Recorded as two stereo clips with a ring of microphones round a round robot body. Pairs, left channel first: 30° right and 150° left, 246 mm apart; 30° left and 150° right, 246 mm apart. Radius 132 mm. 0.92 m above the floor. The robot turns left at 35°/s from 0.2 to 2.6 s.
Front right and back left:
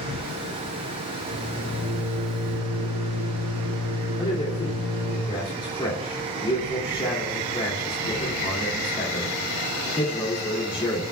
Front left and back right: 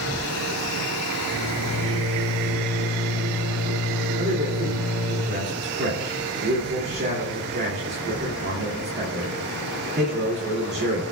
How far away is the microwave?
About 5.5 m.